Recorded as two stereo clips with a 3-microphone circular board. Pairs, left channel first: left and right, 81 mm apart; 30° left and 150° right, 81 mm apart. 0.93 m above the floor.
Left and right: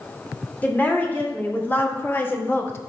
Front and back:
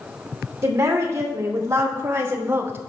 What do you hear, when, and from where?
0.6 s a woman speaking: 160° left, 2.5 m; by 2.9 s 150° left, 1.0 m